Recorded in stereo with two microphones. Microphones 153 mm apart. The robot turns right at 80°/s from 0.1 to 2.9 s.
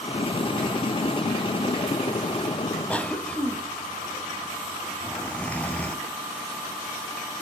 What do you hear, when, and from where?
2.9 s a cough: 10° left (ahead or behind), 1.1 m